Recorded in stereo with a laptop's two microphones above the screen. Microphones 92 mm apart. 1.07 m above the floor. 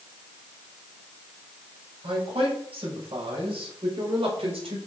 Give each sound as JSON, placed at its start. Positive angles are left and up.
{"t": 2.0, "sound": "a man speaking", "side_deg": -90, "distance_m": 5.0}